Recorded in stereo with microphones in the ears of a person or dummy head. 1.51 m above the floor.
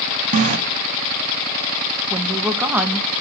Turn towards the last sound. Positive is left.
turn(degrees=-5)  # may be behind; listen again after turning